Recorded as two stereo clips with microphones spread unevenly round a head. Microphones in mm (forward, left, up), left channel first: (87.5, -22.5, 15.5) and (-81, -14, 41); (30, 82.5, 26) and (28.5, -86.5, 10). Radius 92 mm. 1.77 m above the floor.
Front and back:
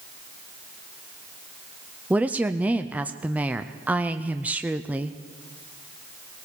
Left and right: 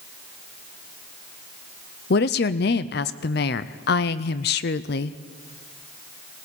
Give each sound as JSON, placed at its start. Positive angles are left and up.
{"t": 2.1, "sound": "a woman speaking", "azimuth_deg": 100, "distance_m": 0.5}